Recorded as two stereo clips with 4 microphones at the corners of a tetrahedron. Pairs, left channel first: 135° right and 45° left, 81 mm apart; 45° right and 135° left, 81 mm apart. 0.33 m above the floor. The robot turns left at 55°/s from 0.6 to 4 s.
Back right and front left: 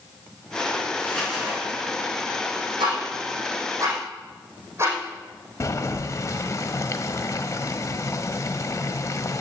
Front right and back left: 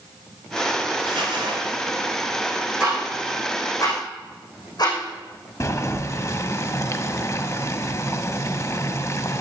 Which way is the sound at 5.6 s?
90° right.